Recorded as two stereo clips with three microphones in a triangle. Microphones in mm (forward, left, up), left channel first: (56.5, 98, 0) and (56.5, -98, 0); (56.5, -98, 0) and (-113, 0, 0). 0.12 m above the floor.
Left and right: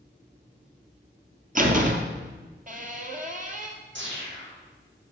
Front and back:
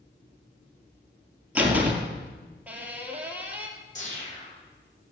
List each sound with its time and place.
1.6 s a door slam: 130° right, 1.8 m
4.0 s a whoosh: 80° right, 6 m